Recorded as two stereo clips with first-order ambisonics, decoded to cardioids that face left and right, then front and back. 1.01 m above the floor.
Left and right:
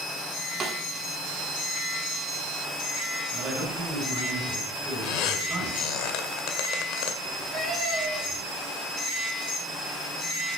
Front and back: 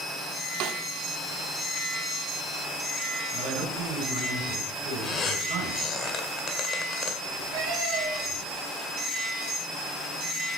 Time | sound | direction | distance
0.6 | a snare drum | 155° right | 1.6 m
3.3 | a man speaking | 165° right | 8 m
5.0 | a squeak | 65° left | 1.9 m
7.2 | a cat meowing | 160° right | 8 m